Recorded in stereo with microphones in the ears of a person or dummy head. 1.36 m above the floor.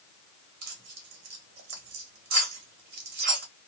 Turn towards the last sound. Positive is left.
turn(degrees=-50)  # may be behind; listen again after turning